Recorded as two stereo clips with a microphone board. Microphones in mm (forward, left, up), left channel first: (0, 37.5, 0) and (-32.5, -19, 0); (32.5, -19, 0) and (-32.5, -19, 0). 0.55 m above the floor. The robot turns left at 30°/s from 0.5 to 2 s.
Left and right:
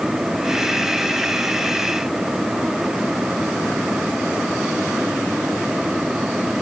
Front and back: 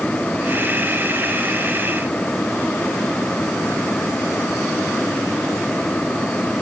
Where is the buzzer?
I don't hear a buzzer.